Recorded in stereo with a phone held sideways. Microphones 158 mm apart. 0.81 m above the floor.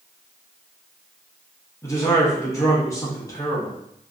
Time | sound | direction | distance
1.8 | a man speaking | 20° left (ahead or behind) | 1.0 m